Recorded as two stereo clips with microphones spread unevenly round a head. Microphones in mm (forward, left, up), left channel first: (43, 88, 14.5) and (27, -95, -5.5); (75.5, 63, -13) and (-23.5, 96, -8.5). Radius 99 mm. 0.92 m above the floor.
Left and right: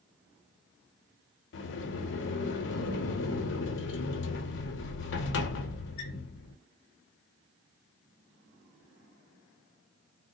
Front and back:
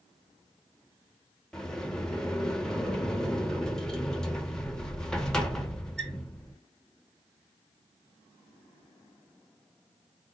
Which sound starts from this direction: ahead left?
A sliding door, at 1.5 s.